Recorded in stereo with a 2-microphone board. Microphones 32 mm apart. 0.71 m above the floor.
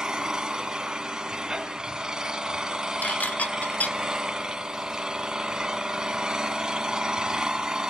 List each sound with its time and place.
0.0 s an engine running: 20° right (ahead or behind), 1.7 m
3.0 s dishes clattering: 60° left (ahead or behind), 1.1 m